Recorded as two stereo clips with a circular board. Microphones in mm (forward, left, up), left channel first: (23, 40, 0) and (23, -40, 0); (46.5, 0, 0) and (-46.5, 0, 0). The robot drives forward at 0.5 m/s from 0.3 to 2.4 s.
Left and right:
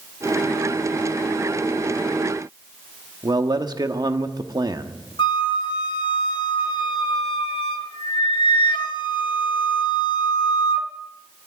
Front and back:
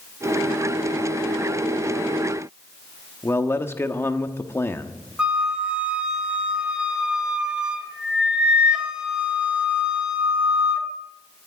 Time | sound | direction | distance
3.2 | a man speaking | 60° right | 1.0 m
5.2 | a flute | 100° left | 1.2 m